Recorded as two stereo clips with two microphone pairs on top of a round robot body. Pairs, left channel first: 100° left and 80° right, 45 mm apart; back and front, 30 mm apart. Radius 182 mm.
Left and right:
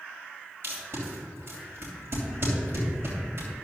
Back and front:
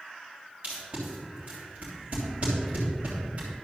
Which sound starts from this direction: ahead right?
Tape being pulled, at 0.6 s.